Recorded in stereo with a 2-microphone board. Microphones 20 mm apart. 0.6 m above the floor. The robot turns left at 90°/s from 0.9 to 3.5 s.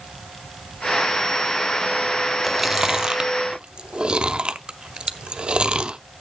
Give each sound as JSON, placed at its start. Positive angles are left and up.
{"t": 2.4, "sound": "chewing", "side_deg": 0, "distance_m": 0.5}